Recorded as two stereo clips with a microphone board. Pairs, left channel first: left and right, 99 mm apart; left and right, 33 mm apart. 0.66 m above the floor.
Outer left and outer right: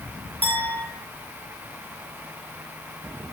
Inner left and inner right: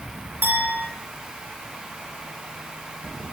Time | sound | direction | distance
0.4 | a clink | 80° right | 5.5 m